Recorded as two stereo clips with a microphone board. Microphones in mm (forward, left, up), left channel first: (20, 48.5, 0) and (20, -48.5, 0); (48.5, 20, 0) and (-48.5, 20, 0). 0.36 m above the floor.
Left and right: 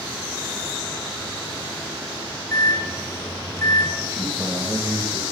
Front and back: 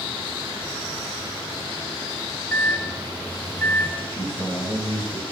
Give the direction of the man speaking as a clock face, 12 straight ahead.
2 o'clock.